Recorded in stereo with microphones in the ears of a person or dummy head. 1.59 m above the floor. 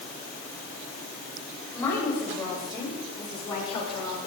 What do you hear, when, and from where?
1.7 s a woman speaking: 20° left (ahead or behind), 5.5 m; by 4.3 s 35° left (ahead or behind), 4.5 m